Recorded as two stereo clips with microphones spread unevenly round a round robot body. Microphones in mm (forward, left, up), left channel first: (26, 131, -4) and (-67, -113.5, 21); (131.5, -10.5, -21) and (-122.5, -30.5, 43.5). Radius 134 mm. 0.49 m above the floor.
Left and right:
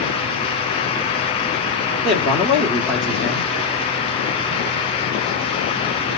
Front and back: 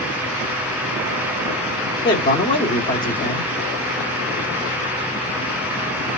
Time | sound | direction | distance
2.0 | a man speaking | 10° right | 1.2 m